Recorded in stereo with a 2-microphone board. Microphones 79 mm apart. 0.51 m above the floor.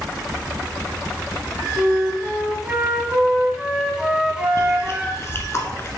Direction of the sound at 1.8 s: 10° right (ahead or behind).